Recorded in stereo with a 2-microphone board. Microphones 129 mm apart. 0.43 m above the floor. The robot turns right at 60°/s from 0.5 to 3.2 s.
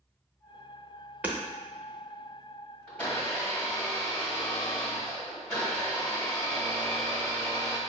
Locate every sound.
1.2 s hammering: 15° right (ahead or behind), 0.6 m; by 1.4 s 20° right (ahead or behind), 0.6 m
2.9 s a blender: 5° left (ahead or behind), 1.3 m; by 7.8 s 15° left (ahead or behind), 1.3 m